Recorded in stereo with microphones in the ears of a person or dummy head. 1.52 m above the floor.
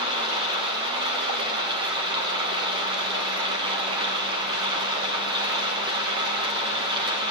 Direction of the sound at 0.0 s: 25° right (ahead or behind).